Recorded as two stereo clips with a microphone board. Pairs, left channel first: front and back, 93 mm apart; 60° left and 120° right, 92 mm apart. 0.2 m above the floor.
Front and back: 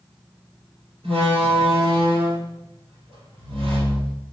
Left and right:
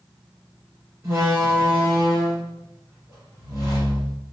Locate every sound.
1.0 s a door slam: straight behind, 3.5 m